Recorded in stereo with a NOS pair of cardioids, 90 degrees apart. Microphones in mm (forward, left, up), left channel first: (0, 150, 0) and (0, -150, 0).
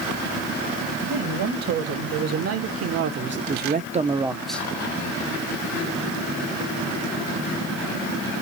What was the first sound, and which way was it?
A man speaking, 65° right.